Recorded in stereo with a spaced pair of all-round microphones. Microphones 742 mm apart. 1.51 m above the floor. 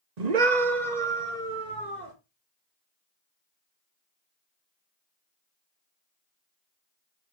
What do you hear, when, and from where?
0.2 s a scream: 60° right (ahead or behind), 1.0 m; by 2.1 s 70° right (ahead or behind), 2.5 m